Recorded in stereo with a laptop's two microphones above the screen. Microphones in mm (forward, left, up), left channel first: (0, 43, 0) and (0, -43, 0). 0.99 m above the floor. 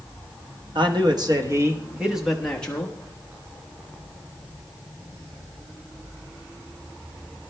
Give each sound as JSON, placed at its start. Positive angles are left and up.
{"t": 0.8, "sound": "a man speaking", "side_deg": -65, "distance_m": 1.3}